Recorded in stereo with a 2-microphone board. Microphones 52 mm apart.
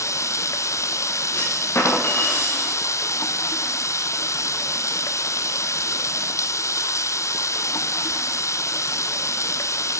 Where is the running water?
75° left (ahead or behind), 0.9 m.